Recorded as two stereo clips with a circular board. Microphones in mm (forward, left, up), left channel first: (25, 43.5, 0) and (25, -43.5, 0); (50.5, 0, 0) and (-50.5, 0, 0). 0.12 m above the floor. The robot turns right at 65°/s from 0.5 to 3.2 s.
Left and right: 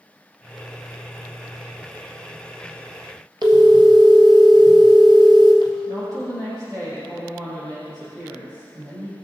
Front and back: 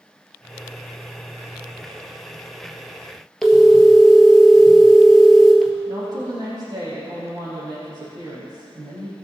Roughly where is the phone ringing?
Right.